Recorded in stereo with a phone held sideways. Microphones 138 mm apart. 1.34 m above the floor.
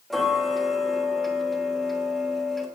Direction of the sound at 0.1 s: Centre (ahead or behind).